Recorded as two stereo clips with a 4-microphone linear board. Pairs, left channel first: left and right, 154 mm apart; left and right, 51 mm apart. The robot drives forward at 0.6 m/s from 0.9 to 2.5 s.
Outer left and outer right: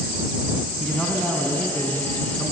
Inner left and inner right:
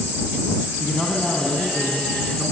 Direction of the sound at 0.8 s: Centre (ahead or behind).